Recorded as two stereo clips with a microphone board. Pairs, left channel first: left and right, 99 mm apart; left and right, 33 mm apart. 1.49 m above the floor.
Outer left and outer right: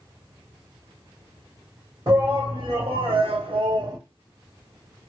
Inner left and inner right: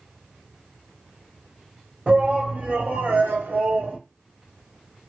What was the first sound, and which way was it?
A shout, 45° right (ahead or behind).